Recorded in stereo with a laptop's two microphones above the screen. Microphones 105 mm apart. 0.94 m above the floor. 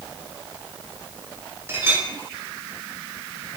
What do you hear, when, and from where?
1.7 s a clink: 25° right (ahead or behind), 1.4 m